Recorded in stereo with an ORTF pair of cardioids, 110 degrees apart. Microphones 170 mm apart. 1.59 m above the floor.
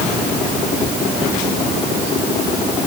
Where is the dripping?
I don't hear dripping.